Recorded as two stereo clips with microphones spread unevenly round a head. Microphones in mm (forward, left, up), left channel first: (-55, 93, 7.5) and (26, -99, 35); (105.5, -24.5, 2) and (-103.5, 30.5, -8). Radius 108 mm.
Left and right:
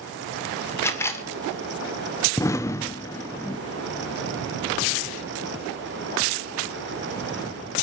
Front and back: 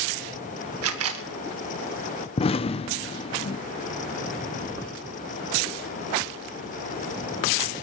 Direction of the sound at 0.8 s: 170° right.